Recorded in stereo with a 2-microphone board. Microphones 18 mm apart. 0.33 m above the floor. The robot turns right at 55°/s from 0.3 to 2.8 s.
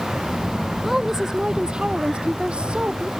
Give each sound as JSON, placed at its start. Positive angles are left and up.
{"t": 0.8, "sound": "a woman speaking", "azimuth_deg": -170}